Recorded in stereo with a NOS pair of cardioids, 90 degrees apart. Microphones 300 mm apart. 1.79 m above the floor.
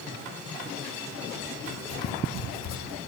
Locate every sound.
1.7 s writing: 60° left, 1.0 m